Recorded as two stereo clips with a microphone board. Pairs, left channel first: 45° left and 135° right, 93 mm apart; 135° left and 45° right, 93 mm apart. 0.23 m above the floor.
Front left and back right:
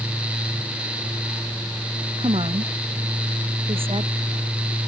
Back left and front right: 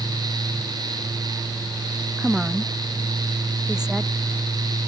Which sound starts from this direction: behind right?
A woman speaking, at 2.2 s.